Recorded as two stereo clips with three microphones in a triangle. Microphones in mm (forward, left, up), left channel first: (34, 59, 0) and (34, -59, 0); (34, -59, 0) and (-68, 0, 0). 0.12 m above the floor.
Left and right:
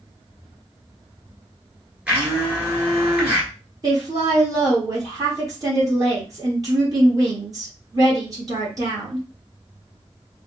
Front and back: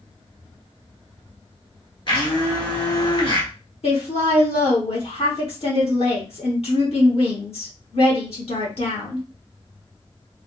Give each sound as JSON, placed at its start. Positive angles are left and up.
{"t": 2.1, "sound": "a blender", "azimuth_deg": -15, "distance_m": 1.6}
{"t": 3.8, "sound": "a woman speaking", "azimuth_deg": -35, "distance_m": 2.5}